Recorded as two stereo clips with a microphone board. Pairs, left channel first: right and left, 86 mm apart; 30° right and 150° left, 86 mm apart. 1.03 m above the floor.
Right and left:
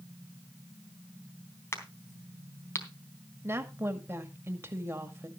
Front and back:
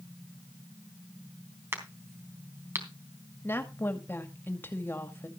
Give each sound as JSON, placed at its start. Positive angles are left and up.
{"t": 1.7, "sound": "a crack", "azimuth_deg": -150, "distance_m": 3.5}
{"t": 3.4, "sound": "a woman speaking", "azimuth_deg": 35, "distance_m": 2.0}